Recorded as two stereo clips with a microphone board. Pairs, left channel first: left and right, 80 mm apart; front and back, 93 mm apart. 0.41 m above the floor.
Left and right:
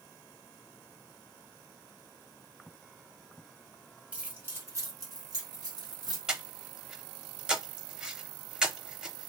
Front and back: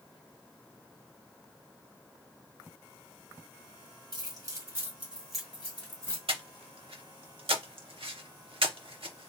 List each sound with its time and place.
4.1 s keys jangling: 160° right, 1.1 m; by 6.2 s 65° right, 1.5 m
6.3 s breathing: 170° right, 0.6 m